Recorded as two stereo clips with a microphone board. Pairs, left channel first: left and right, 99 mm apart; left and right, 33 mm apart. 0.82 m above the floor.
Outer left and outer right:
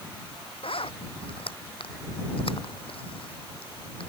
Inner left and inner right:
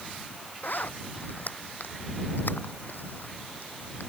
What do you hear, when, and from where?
0.6 s a zipper: 70° left (ahead or behind)